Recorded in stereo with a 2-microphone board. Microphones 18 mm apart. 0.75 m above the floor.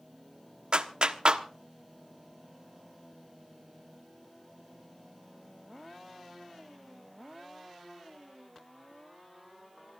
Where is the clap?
60° right (ahead or behind), 1.2 m.